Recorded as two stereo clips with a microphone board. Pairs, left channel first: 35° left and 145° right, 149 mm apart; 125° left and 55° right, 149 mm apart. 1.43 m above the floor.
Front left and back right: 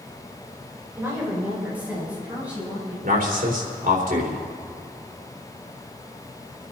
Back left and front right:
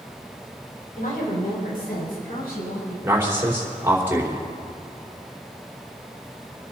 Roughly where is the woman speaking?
Behind left.